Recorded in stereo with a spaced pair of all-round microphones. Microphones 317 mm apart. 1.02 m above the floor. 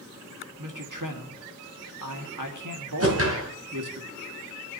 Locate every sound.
0.6 s a man speaking: 75° right (ahead or behind), 1.7 m
3.0 s a whoosh: 45° right (ahead or behind), 2.5 m